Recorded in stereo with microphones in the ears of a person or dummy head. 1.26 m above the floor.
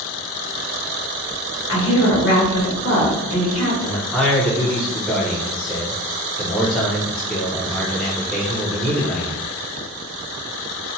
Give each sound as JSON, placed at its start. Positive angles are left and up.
{"t": 1.7, "sound": "a woman speaking", "side_deg": 65, "distance_m": 1.1}
{"t": 3.8, "sound": "a man speaking", "side_deg": 10, "distance_m": 0.7}